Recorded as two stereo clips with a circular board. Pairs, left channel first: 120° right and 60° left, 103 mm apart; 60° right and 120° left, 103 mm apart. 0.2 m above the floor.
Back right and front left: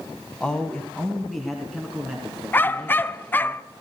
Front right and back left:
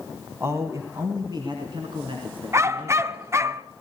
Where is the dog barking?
175° left, 0.7 m.